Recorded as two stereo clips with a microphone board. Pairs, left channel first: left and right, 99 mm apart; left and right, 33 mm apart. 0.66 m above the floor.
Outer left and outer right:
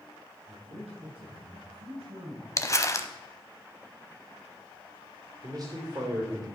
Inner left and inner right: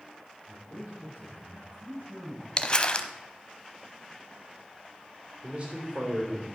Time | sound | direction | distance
0.5 | a man speaking | 80° right | 5 m
2.6 | crumpling | 30° left (ahead or behind) | 0.7 m
5.4 | a man speaking | 40° right (ahead or behind) | 2.5 m